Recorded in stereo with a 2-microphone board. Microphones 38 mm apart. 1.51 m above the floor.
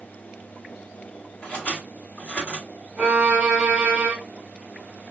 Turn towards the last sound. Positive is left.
turn(degrees=-30)  # may be behind; listen again after turning